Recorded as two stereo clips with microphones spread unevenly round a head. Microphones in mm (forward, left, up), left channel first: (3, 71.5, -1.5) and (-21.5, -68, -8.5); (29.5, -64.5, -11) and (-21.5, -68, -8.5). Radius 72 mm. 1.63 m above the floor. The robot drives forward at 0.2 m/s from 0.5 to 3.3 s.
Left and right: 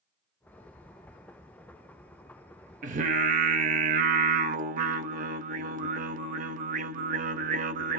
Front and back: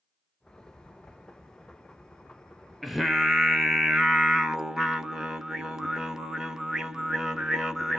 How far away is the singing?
About 0.6 m.